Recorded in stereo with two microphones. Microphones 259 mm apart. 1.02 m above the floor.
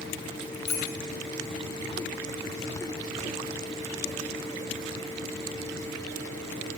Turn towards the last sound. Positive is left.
turn(degrees=35)  # may be behind; listen again after turning